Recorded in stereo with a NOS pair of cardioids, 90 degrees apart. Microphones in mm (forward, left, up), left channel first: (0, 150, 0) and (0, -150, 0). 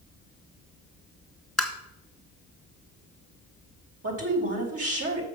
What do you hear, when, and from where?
1.6 s tapping: straight ahead, 2.0 m
4.0 s a woman speaking: 50° right, 3 m